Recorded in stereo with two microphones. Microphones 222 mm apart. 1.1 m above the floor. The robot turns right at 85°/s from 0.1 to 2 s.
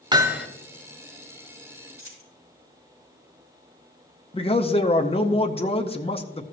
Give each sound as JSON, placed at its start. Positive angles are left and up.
{"t": 0.1, "sound": "hammering", "azimuth_deg": -35, "distance_m": 0.9}
{"t": 2.0, "sound": "a dropped coin", "side_deg": -75, "distance_m": 4.5}
{"t": 4.3, "sound": "a man speaking", "side_deg": 25, "distance_m": 0.6}